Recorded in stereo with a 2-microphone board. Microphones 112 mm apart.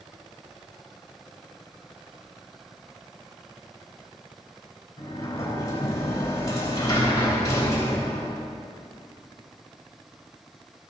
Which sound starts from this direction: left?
A sliding door, at 5.0 s.